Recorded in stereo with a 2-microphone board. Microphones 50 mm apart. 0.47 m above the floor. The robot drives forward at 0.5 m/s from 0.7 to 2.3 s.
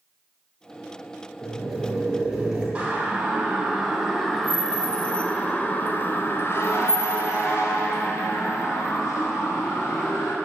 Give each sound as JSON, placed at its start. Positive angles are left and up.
{"t": 1.4, "sound": "boiling", "side_deg": -10, "distance_m": 6.0}
{"t": 2.8, "sound": "a siren", "side_deg": -25, "distance_m": 4.0}